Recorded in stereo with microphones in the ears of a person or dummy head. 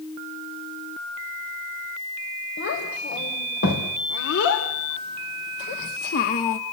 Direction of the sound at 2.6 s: 70° left (ahead or behind).